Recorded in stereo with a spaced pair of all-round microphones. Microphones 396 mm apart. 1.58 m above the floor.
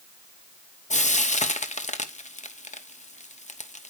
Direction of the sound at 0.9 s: 20° left (ahead or behind).